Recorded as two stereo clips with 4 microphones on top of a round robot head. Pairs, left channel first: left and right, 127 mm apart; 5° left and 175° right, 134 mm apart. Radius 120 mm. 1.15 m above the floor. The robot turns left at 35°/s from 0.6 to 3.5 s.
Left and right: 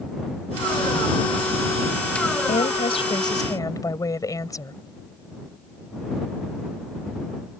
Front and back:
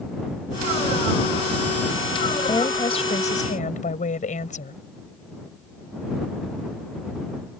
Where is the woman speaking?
65° left; by 4.7 s 30° left.